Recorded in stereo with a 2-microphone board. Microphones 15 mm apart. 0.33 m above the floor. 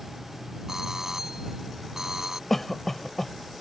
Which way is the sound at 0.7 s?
30° right (ahead or behind).